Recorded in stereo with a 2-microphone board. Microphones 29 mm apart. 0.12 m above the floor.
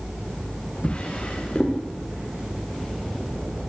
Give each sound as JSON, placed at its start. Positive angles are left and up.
{"t": 0.8, "sound": "a drawer", "side_deg": 35, "distance_m": 8.5}